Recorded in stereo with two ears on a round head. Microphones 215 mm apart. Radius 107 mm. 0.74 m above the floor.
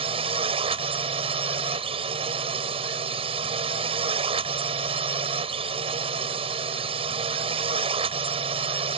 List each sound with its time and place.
0.0 s a drone: 25° right (ahead or behind)